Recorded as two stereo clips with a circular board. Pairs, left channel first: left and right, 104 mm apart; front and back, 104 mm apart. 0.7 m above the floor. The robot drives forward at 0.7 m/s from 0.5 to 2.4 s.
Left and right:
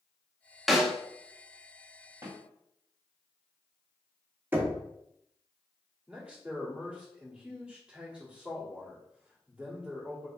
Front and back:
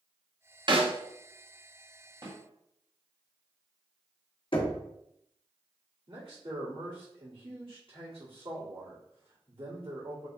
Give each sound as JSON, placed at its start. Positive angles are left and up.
{"t": 0.7, "sound": "a snare drum", "azimuth_deg": 180, "distance_m": 0.6}
{"t": 2.2, "sound": "a snare drum", "azimuth_deg": -150, "distance_m": 1.9}
{"t": 4.5, "sound": "knocking", "azimuth_deg": -20, "distance_m": 0.8}
{"t": 6.1, "sound": "a man speaking", "azimuth_deg": -165, "distance_m": 2.0}